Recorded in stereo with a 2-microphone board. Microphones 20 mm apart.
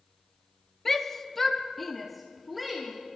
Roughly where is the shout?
Centre.